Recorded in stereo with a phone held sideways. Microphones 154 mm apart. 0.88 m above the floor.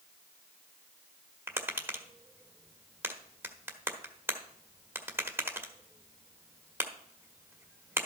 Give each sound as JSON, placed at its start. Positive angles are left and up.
{"t": 1.5, "sound": "tapping", "side_deg": -15, "distance_m": 1.2}